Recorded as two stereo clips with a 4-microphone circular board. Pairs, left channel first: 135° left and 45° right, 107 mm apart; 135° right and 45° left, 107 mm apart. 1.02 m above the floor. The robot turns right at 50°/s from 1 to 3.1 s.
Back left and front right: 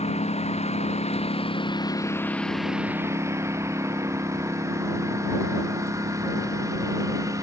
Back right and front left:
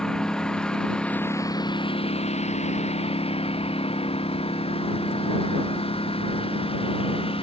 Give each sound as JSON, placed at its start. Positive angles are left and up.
{"t": 0.0, "sound": "a lawn mower", "azimuth_deg": 140}